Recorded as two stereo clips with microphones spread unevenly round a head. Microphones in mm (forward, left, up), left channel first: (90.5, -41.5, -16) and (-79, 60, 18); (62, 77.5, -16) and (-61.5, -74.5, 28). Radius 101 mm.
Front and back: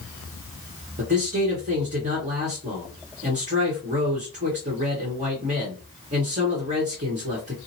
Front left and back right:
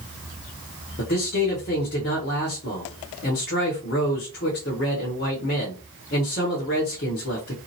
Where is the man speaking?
95° left, 1.3 m.